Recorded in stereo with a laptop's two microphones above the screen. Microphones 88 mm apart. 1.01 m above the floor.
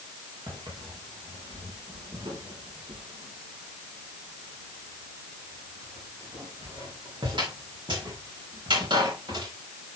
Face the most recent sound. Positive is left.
turn(degrees=-60)  # may be behind; listen again after turning